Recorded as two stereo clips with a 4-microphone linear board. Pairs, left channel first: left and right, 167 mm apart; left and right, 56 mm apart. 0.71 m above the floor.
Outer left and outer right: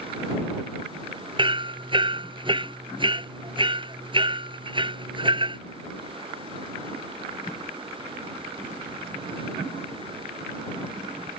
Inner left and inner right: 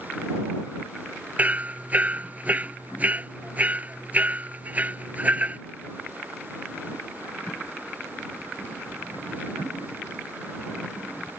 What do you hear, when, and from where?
1.4 s hammering: 30° right (ahead or behind)